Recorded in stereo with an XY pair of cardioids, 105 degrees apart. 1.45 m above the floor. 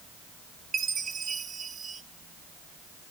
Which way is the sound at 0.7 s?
45° right.